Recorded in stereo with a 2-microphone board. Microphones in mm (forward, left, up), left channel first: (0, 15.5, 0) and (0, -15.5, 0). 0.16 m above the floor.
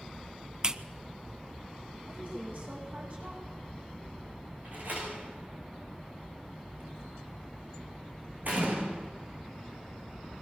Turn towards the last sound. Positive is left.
turn(degrees=-65)  # may be behind; listen again after turning